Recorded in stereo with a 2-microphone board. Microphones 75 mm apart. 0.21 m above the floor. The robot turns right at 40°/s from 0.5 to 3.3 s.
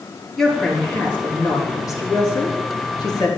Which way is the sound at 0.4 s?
5° left.